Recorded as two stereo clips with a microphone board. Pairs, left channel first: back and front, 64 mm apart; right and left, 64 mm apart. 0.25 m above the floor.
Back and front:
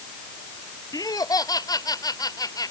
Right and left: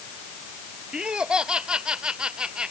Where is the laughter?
165° left.